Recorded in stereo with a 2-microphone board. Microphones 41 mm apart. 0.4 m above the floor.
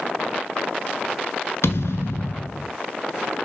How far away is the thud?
About 1.0 m.